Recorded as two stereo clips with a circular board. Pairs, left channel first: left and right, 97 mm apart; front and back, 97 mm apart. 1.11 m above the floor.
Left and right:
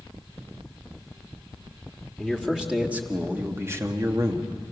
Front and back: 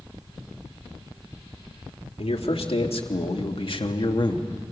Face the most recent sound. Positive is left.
turn(degrees=-45)